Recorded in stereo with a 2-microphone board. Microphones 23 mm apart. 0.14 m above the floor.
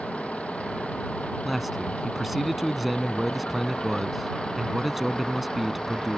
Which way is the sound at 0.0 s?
75° left (ahead or behind).